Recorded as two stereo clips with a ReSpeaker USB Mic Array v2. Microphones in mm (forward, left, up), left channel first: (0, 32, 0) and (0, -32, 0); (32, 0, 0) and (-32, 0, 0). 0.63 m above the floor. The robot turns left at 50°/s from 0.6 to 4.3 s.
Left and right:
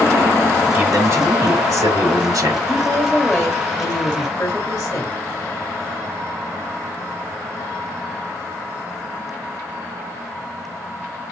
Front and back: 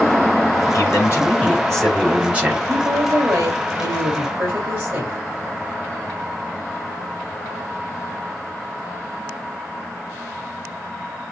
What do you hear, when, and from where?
0.7 s a man speaking: 25° right, 2.5 m; by 2.6 s 120° right, 2.5 m
2.7 s a woman speaking: 140° right, 3 m; by 5.2 s 140° left, 3 m